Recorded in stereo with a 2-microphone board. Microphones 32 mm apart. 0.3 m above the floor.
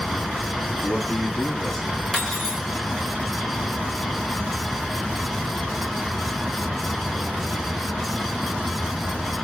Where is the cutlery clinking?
10° left (ahead or behind), 1.5 m.